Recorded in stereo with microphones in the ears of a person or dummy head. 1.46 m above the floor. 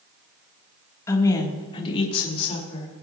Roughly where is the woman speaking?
Centre.